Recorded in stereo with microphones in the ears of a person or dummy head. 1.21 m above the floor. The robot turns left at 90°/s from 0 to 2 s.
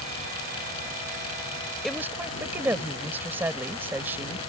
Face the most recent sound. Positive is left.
turn(degrees=-10)  # may be behind; listen again after turning